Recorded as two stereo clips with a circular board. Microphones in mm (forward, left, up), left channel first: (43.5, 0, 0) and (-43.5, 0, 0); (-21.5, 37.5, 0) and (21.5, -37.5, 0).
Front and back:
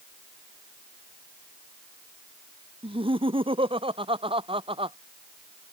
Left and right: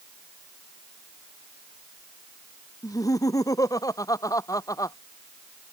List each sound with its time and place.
2.8 s laughter: 170° left